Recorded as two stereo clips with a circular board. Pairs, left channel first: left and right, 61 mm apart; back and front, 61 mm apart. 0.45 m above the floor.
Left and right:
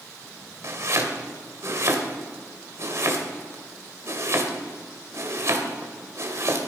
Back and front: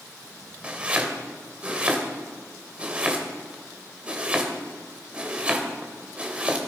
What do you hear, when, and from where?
0.6 s chopping: 65° right, 2.5 m